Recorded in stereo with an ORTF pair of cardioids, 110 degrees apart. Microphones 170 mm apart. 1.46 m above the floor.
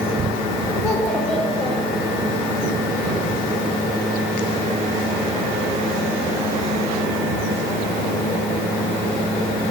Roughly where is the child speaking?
Ahead left.